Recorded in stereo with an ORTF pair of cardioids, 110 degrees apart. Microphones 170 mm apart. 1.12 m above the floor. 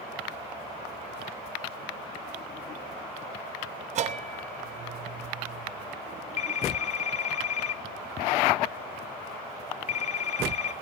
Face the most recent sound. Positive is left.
turn(degrees=40)